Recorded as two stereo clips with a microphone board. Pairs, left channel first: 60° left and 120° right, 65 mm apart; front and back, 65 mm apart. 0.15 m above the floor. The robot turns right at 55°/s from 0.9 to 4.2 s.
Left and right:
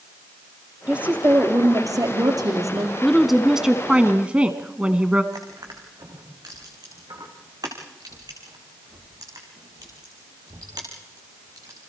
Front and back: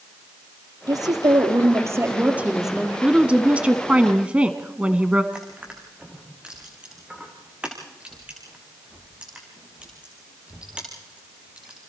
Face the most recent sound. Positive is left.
turn(degrees=-110)